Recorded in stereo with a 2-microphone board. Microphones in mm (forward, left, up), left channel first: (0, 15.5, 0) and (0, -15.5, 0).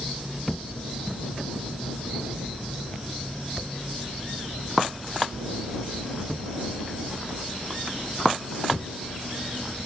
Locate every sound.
0.5 s a thud: 5° left (ahead or behind)